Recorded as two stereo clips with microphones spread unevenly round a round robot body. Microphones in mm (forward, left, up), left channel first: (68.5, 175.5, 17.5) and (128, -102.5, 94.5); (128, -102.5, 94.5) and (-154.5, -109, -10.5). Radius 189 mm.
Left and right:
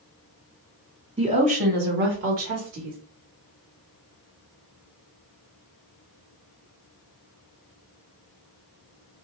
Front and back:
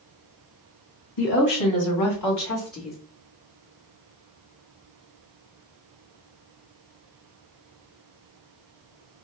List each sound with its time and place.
1.2 s a woman speaking: straight ahead, 1.7 m; by 3.0 s 55° right, 1.2 m